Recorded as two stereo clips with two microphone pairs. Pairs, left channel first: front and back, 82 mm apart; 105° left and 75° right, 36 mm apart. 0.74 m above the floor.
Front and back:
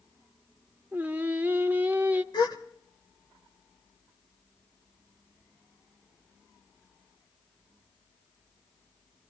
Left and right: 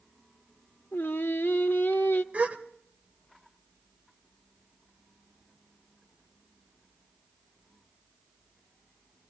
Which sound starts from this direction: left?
Singing, at 0.9 s.